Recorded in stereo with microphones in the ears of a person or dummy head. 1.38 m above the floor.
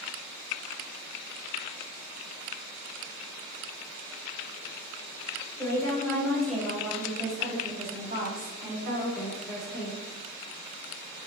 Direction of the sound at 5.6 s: 20° left (ahead or behind).